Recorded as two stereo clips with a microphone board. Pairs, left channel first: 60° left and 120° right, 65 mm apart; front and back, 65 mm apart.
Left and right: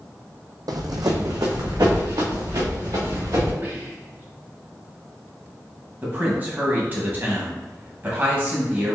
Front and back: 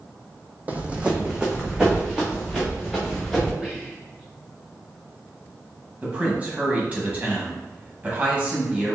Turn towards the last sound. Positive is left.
turn(degrees=-135)